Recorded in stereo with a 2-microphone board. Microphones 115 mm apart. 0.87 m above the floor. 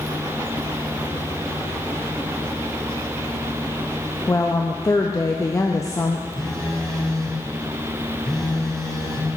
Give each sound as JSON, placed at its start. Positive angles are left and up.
{"t": 4.3, "sound": "a woman speaking", "side_deg": 30, "distance_m": 0.6}
{"t": 6.4, "sound": "a phone buzzing", "side_deg": 5, "distance_m": 2.0}